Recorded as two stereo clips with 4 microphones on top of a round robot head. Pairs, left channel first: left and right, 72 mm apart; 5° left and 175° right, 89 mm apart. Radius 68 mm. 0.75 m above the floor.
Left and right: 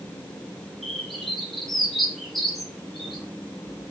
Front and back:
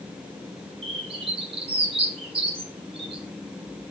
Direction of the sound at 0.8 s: 175° left.